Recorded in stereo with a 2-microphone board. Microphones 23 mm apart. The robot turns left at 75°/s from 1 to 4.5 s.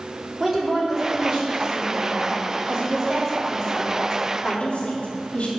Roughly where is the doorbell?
I don't hear a doorbell.